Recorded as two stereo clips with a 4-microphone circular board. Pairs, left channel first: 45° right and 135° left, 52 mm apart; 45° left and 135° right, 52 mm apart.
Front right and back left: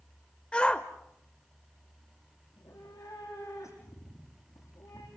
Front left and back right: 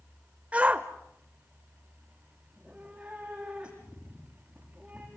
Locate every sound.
0.5 s a shout: 95° right, 0.9 m
2.5 s a cat meowing: 60° right, 7 m